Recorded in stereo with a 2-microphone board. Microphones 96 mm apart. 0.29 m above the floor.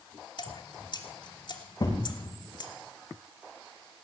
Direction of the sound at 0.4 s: 50° left (ahead or behind).